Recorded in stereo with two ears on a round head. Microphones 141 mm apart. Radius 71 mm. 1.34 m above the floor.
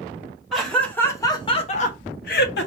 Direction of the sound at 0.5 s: Centre (ahead or behind).